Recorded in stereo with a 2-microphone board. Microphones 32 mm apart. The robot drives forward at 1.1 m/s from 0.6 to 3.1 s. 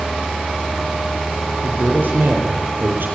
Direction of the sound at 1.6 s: 70° right (ahead or behind).